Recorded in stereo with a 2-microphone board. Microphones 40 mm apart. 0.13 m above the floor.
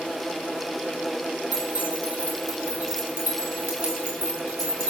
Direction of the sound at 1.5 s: 65° right (ahead or behind).